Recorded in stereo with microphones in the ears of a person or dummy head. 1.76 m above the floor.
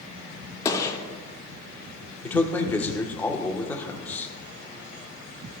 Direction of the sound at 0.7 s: 25° left (ahead or behind).